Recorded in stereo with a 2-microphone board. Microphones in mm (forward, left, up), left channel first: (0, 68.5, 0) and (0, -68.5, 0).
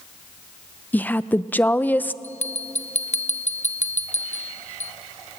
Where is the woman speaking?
10° left (ahead or behind), 0.5 m.